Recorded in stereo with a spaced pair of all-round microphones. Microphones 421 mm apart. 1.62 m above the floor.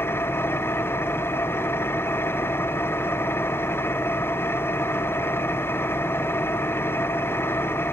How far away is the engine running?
About 0.8 m.